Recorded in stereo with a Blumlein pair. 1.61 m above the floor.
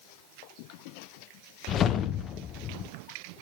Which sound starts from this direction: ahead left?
A whoosh, at 1.7 s.